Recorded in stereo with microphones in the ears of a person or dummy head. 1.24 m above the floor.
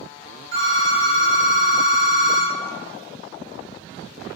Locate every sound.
0.5 s a phone ringing: 60° right (ahead or behind), 1.0 m